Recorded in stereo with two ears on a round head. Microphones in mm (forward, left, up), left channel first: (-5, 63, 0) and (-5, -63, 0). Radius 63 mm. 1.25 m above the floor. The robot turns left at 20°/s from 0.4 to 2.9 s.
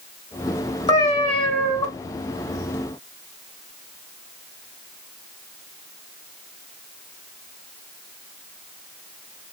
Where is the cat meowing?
30° left (ahead or behind), 1.3 m; by 1.9 s 40° left (ahead or behind), 1.3 m.